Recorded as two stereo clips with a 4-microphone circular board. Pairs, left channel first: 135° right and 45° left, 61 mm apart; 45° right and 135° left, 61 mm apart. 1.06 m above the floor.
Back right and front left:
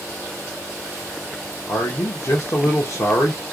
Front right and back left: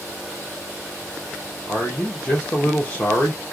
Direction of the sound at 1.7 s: 115° right.